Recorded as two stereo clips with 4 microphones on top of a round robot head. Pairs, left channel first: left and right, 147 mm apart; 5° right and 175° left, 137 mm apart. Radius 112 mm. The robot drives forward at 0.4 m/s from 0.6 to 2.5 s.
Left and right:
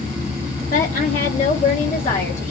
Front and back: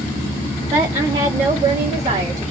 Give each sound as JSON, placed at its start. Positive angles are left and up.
{"t": 0.7, "sound": "a woman speaking", "azimuth_deg": 115, "distance_m": 1.0}